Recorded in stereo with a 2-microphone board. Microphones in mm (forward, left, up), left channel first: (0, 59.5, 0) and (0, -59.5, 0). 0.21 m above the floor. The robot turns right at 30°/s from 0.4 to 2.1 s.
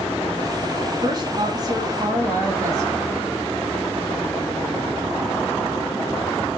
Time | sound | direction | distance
1.0 | a woman speaking | 85° right | 1.3 m